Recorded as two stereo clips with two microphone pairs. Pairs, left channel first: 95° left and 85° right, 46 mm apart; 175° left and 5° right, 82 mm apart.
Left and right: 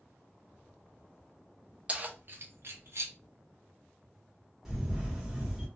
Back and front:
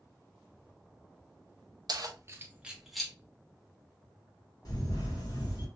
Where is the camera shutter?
165° right, 1.0 m.